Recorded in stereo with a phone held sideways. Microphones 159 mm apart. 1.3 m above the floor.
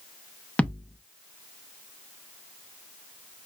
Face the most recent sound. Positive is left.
turn(degrees=10)  # may be behind; listen again after turning